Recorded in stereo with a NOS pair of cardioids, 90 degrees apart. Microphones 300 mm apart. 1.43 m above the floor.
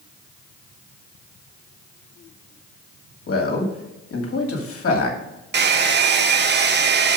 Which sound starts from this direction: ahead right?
A hair dryer, at 5.5 s.